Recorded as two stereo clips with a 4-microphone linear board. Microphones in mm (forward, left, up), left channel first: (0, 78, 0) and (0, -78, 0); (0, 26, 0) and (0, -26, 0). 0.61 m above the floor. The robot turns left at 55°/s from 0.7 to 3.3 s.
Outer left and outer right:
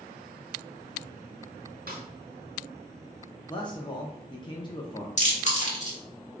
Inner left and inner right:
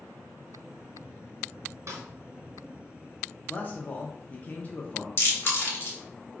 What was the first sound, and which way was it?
A snare drum, 70° right (ahead or behind).